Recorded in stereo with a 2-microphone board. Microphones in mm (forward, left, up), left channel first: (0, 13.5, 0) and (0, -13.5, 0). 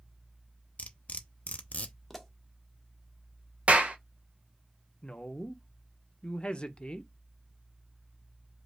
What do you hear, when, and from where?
0.8 s cutlery clinking: 65° left (ahead or behind), 0.6 m
2.1 s a pop: centre (ahead or behind), 0.8 m
3.7 s a clap: 55° right (ahead or behind), 0.8 m
5.0 s a woman speaking: 35° left (ahead or behind), 0.7 m